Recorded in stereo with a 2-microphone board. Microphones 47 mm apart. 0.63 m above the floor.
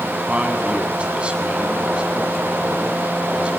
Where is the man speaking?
25° right (ahead or behind), 6.5 m.